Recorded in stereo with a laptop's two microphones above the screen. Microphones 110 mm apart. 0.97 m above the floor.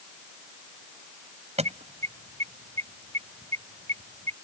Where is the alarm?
70° right (ahead or behind).